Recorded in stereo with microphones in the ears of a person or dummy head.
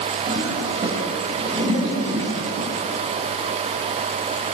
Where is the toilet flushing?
30° right (ahead or behind), 6.5 m.